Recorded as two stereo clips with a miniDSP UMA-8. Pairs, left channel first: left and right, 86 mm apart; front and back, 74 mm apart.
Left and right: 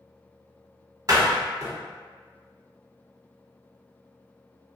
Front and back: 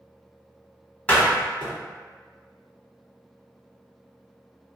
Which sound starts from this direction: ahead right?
A door slam, at 1.1 s.